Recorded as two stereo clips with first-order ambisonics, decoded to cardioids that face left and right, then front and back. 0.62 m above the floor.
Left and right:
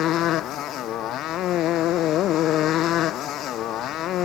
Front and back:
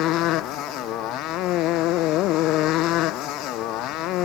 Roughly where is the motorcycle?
Ahead left.